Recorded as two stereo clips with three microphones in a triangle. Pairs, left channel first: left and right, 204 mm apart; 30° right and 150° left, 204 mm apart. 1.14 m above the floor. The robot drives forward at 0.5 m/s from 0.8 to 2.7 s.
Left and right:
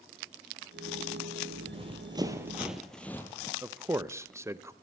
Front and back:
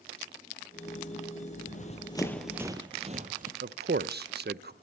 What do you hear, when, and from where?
1.6 s running footsteps: 40° right, 1.5 m; by 3.5 s 155° left, 1.5 m
3.6 s a man speaking: 165° right, 0.5 m